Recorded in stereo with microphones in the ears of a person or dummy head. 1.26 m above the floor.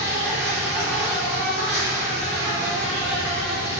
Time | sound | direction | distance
0.0 | an insect | 5° right (ahead or behind) | 0.8 m